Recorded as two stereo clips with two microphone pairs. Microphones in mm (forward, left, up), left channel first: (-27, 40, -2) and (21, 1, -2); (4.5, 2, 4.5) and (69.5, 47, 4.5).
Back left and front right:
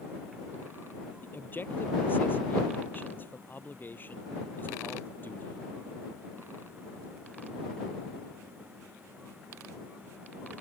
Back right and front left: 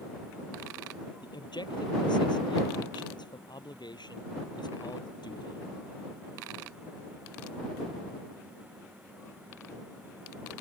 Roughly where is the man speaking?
Behind.